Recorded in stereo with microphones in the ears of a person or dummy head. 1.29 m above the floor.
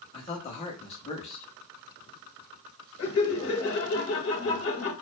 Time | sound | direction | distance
0.1 | a man speaking | 25° left (ahead or behind) | 0.9 m
3.0 | laughter | 55° left (ahead or behind) | 1.1 m